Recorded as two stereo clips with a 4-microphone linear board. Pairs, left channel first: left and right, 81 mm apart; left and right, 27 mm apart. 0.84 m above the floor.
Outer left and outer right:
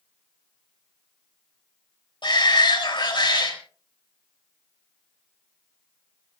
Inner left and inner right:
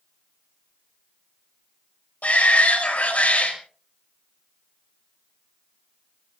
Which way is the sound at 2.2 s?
70° left (ahead or behind).